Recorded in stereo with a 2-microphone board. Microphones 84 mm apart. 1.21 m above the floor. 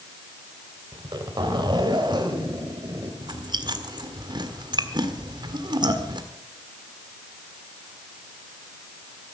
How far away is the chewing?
About 1.6 m.